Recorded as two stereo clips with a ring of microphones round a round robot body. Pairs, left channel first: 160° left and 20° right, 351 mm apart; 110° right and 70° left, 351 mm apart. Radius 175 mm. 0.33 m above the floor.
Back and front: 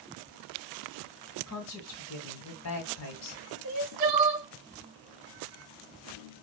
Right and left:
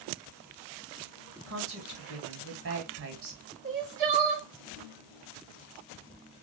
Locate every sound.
1.5 s a woman speaking: 115° left, 2 m
3.6 s crying: straight ahead, 2.0 m